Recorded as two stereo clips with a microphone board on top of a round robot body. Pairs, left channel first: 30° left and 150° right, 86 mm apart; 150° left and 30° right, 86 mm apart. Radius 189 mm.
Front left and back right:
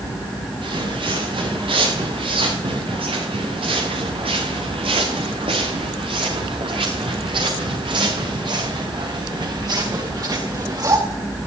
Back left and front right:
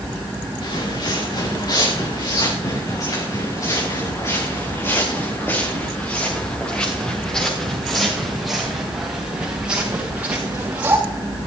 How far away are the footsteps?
About 8 m.